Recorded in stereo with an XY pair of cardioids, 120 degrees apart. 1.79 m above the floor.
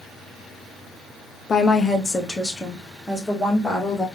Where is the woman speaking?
30° left, 0.9 m; by 4.1 s straight ahead, 2 m.